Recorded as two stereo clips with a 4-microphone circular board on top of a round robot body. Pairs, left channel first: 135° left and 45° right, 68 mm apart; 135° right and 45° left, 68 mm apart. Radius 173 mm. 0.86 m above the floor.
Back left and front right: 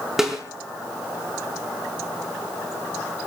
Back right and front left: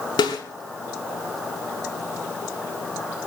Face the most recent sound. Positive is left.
turn(degrees=-130)